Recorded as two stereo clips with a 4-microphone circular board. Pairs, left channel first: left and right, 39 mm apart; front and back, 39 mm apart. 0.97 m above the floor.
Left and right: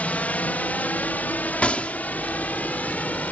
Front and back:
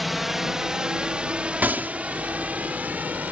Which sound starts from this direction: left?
A drone, at 0.0 s.